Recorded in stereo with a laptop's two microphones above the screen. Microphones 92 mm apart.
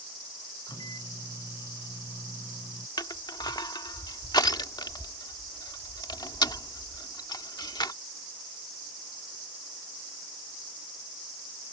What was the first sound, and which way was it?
A microwave, 50° left (ahead or behind).